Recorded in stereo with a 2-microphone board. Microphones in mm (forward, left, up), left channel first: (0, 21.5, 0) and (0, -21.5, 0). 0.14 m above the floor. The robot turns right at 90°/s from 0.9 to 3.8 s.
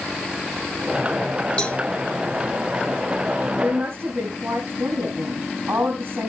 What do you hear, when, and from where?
1.6 s a cowbell: 25° left (ahead or behind), 1.3 m; by 1.8 s 40° left (ahead or behind), 1.3 m
3.6 s a woman speaking: 45° right (ahead or behind), 5.5 m; by 6.3 s 65° right (ahead or behind), 5.5 m